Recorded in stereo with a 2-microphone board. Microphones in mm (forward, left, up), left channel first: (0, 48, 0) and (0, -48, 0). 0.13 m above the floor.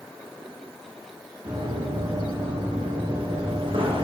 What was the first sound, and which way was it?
Running footsteps, 60° right (ahead or behind).